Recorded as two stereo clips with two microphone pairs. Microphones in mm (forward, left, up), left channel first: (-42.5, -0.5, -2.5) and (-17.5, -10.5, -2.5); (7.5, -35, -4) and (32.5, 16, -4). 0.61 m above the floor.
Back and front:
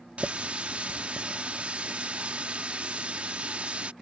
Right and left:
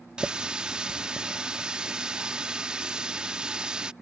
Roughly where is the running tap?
Ahead.